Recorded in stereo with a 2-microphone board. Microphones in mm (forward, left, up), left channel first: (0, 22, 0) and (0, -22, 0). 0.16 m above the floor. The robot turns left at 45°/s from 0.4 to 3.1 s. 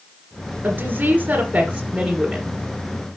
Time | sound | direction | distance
0.6 | a woman speaking | 90° right | 1.7 m